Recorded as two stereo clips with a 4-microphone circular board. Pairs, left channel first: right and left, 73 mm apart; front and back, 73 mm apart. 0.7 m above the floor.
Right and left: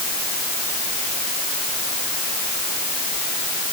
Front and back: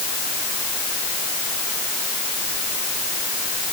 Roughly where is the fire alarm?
I don't hear a fire alarm.